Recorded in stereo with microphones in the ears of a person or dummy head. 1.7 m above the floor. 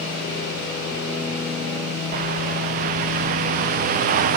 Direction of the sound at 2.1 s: 40° right (ahead or behind).